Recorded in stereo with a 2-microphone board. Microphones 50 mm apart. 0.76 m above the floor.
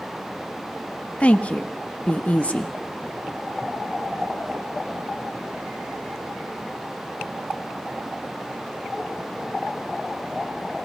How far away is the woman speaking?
About 1.2 m.